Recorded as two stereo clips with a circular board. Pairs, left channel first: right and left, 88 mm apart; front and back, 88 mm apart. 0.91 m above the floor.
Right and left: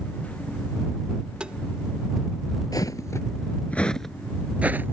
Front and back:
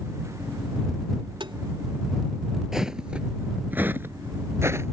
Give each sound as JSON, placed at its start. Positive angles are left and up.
{"t": 1.4, "sound": "tapping", "azimuth_deg": 170}
{"t": 2.7, "sound": "footsteps", "azimuth_deg": -95}